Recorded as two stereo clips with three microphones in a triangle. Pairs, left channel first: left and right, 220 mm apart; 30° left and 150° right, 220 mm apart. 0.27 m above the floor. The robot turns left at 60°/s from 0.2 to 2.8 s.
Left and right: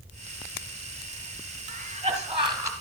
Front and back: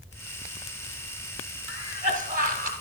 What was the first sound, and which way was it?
A cough, 100° right.